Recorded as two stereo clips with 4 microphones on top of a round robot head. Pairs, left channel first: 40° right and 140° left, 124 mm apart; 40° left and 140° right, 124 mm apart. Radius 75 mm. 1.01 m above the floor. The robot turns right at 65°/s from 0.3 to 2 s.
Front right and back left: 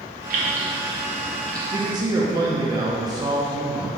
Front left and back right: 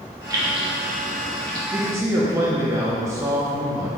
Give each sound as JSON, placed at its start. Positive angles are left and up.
{"t": 0.3, "sound": "keys jangling", "azimuth_deg": 155, "distance_m": 0.8}
{"t": 1.7, "sound": "a man speaking", "azimuth_deg": 155, "distance_m": 0.6}